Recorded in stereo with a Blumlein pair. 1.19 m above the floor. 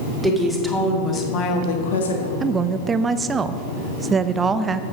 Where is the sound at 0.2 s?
5° right, 2.5 m; by 2.3 s 75° left, 1.8 m.